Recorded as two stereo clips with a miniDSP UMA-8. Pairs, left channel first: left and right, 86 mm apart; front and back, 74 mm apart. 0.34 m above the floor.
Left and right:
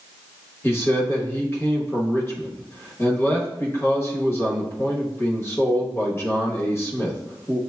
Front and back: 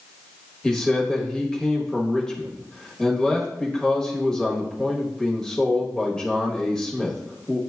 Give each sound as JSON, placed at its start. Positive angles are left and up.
{"t": 0.6, "sound": "a man speaking", "azimuth_deg": 75, "distance_m": 1.0}